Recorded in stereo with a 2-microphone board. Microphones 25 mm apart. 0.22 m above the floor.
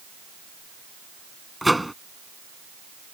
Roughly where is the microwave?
Centre.